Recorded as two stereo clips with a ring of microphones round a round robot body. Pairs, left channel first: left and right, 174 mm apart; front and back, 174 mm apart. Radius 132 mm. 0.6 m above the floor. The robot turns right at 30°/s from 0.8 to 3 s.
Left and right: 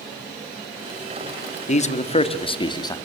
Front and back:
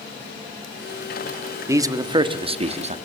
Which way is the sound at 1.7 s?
110° left.